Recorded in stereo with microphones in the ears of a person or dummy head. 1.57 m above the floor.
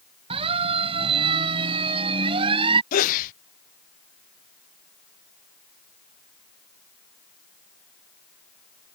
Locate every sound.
0.3 s a siren: 35° right (ahead or behind); by 2.8 s 30° right (ahead or behind)
2.9 s a sneeze: 40° left (ahead or behind)